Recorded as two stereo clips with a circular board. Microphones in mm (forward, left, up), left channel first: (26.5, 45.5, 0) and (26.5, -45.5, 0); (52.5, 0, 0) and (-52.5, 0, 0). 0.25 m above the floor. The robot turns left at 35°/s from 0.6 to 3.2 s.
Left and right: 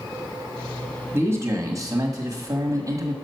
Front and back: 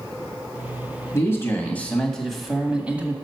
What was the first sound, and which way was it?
A man speaking, 45° right.